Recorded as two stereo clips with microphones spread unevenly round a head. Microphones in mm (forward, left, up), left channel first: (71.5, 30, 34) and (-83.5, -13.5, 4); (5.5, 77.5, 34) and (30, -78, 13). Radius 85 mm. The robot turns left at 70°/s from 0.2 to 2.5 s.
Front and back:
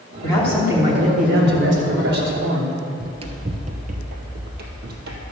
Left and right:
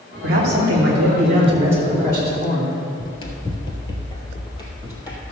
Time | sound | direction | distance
0.2 | a man speaking | 55° right | 3 m
3.0 | running footsteps | 130° left | 1.3 m